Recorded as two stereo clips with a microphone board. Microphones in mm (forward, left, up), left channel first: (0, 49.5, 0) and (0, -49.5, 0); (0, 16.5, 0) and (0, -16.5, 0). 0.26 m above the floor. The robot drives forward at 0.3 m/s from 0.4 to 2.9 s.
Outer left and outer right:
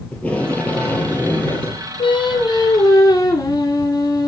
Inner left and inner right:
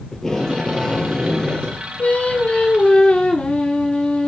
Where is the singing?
60° left (ahead or behind), 0.5 m; by 4.3 s 40° left (ahead or behind), 0.7 m.